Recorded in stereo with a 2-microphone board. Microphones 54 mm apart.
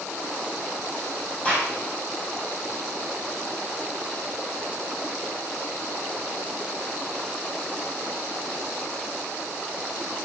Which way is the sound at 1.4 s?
25° left (ahead or behind).